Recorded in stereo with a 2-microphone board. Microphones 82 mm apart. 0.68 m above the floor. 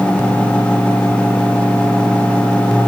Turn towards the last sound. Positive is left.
No sound to turn to.